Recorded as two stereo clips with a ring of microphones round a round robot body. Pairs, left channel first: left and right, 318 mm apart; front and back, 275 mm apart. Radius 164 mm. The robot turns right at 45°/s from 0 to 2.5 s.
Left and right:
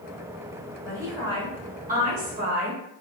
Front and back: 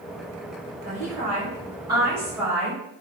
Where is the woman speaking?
165° right, 1.1 m; by 2.8 s 95° right, 1.1 m.